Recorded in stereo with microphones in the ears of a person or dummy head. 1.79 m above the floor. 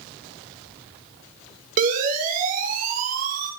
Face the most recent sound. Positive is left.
turn(degrees=-45)  # may be behind; listen again after turning